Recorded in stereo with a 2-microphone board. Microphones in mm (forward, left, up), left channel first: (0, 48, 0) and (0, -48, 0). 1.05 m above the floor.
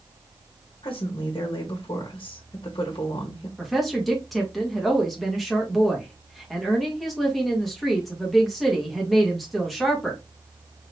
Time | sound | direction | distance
0.8 | a woman speaking | 55° left (ahead or behind) | 1.2 m
3.6 | a woman speaking | centre (ahead or behind) | 1.7 m